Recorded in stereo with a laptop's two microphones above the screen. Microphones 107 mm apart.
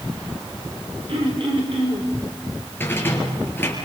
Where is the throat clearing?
55° right (ahead or behind), 4.5 m.